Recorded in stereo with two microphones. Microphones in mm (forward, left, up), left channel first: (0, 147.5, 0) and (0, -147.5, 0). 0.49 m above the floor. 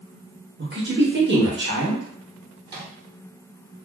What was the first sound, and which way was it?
A woman speaking, 40° right (ahead or behind).